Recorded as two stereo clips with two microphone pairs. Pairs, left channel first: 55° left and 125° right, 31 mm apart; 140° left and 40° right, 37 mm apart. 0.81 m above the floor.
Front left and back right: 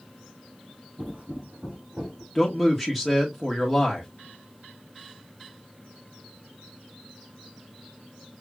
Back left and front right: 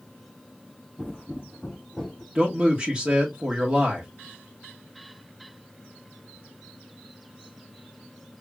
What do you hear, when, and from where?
1.0 s footsteps: 150° right, 2.5 m; by 2.2 s 165° right, 1.8 m
2.4 s a man speaking: 45° right, 1.0 m